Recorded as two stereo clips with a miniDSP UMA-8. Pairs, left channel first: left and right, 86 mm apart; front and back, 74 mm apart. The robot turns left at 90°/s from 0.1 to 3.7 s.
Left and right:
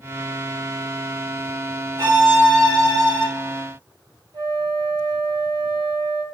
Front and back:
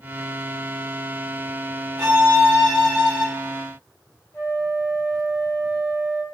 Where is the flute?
60° right, 0.8 m.